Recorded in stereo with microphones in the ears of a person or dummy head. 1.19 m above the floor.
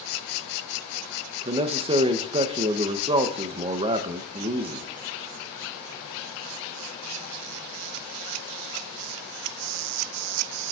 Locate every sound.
1.4 s a man speaking: 15° right (ahead or behind), 0.7 m